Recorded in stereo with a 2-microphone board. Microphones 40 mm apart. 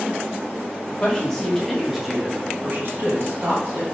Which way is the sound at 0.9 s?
20° left (ahead or behind).